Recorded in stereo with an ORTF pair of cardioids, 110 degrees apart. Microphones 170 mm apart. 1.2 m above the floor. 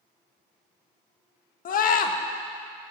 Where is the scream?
55° left, 1.6 m.